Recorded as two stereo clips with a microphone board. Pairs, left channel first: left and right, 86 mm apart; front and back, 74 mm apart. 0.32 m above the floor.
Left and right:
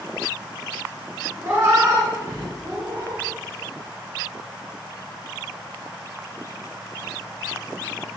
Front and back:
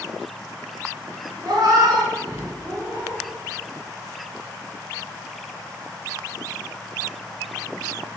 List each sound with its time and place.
1.4 s a cat meowing: 155° right, 1.0 m; by 3.2 s 135° right, 2.5 m